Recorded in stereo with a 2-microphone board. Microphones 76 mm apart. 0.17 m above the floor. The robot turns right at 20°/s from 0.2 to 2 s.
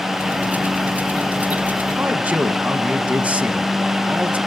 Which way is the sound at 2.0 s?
20° right (ahead or behind).